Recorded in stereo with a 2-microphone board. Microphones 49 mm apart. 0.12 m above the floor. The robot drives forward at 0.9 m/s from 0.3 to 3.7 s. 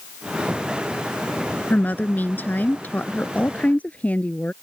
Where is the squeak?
No squeak in this recording.